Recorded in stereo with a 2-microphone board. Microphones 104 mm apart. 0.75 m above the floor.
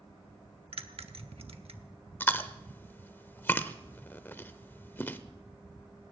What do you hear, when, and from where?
0.7 s a bell: 80° right, 0.9 m
2.2 s chewing: 20° left (ahead or behind), 0.7 m